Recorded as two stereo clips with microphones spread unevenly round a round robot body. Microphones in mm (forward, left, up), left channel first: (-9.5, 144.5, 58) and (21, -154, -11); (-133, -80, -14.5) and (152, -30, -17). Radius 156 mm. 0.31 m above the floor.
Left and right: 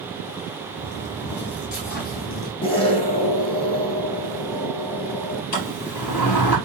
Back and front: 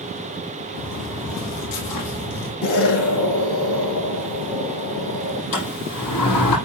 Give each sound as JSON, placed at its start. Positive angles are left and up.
{"t": 0.8, "sound": "footsteps", "azimuth_deg": 145, "distance_m": 4.0}
{"t": 2.6, "sound": "an explosion", "azimuth_deg": 170, "distance_m": 4.5}
{"t": 5.5, "sound": "a sliding door", "azimuth_deg": 135, "distance_m": 6.0}